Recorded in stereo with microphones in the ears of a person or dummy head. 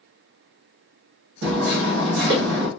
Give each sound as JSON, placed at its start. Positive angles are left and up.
{"t": 1.4, "sound": "hammering", "side_deg": -70, "distance_m": 1.1}